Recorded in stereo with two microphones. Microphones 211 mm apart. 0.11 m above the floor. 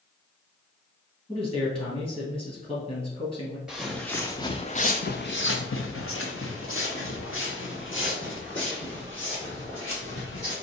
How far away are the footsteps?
About 0.9 m.